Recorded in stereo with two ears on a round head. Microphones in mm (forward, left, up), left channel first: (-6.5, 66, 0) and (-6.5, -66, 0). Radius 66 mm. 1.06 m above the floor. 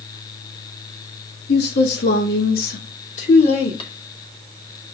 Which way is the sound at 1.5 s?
85° left.